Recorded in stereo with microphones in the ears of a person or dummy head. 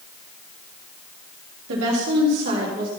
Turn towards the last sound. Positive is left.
turn(degrees=-50)  # may be behind; listen again after turning